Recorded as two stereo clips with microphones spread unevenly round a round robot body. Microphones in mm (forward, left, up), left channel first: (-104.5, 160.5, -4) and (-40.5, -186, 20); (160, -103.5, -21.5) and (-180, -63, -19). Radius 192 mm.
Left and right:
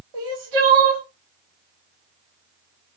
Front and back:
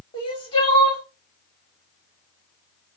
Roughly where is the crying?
Right.